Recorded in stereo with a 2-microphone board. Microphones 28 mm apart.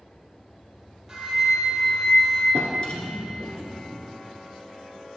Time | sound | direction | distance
1.1 | a flute | 10° right (ahead or behind) | 1.9 m
2.5 | a drawer | 40° left (ahead or behind) | 1.5 m